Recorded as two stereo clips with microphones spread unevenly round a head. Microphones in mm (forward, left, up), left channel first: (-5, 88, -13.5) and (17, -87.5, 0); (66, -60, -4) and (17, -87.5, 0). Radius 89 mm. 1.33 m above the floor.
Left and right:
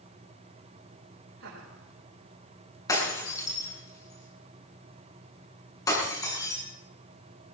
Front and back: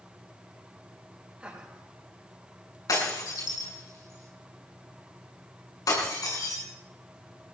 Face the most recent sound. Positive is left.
turn(degrees=25)